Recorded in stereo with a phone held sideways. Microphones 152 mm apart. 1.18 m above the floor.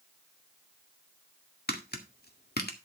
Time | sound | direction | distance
1.7 | tapping | 85° left | 1.8 m